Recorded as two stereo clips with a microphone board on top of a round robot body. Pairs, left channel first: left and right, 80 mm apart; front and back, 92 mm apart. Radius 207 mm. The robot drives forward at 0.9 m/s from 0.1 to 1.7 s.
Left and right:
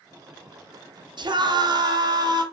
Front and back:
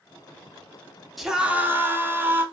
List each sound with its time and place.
1.2 s a scream: 90° right, 1.3 m; by 2.4 s 115° right, 1.4 m